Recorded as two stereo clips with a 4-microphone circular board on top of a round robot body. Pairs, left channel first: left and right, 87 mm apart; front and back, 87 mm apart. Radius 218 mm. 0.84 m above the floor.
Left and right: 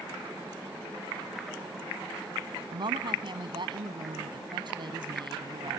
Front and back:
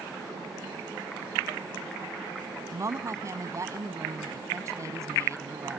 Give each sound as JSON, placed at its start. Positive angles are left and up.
{"t": 2.7, "sound": "a woman speaking", "azimuth_deg": -125}